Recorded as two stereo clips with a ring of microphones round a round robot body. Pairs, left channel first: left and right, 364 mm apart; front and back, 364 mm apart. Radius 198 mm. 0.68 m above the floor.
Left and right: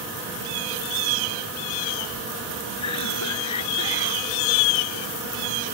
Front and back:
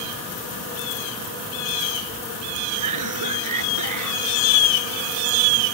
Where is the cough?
140° left.